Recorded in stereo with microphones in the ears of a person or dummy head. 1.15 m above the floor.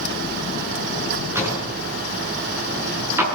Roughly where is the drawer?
Centre.